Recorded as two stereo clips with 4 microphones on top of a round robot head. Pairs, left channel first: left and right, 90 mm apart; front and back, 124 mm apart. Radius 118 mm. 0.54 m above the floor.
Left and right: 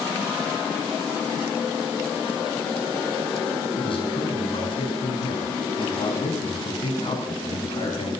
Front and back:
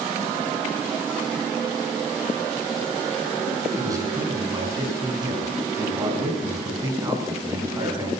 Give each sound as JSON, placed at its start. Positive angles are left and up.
{"t": 3.8, "sound": "a man speaking", "azimuth_deg": 115, "distance_m": 5.0}